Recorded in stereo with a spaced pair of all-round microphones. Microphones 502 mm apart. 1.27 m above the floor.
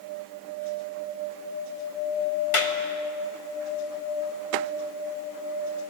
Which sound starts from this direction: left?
A clap, at 2.5 s.